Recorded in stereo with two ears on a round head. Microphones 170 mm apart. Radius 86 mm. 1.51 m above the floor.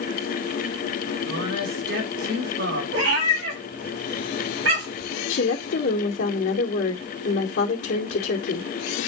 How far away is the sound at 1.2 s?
About 4.5 m.